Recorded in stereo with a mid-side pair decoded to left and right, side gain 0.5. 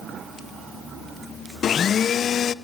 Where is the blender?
50° left, 0.7 m.